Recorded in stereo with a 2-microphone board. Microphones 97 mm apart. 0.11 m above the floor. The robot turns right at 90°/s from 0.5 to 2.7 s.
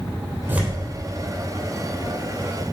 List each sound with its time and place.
0.5 s tearing paper: 20° right (ahead or behind), 3 m; by 0.8 s 10° left (ahead or behind), 3 m